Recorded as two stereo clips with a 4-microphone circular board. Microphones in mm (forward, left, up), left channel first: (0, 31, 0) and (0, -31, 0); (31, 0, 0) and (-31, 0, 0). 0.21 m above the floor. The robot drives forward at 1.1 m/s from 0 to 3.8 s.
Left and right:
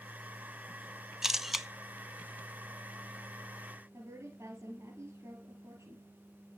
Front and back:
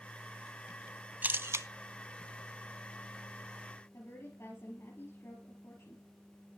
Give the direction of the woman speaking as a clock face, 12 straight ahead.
2 o'clock.